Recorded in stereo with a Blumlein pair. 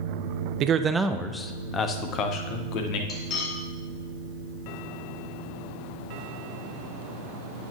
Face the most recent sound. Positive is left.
turn(degrees=30)